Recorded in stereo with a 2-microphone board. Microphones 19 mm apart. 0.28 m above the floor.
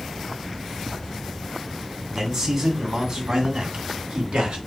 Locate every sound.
2.1 s a man speaking: 35° right (ahead or behind), 1.8 m; by 4.6 s 65° right (ahead or behind), 2 m